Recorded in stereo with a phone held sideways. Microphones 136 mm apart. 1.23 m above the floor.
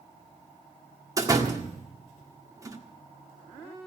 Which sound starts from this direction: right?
A door slam, at 1.2 s.